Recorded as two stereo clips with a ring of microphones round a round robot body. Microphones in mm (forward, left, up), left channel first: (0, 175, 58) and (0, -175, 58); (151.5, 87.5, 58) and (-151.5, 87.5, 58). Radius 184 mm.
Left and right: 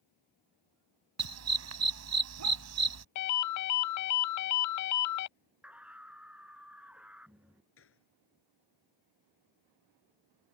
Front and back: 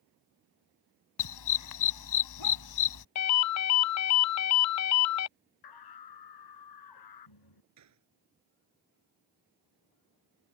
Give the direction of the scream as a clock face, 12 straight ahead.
12 o'clock.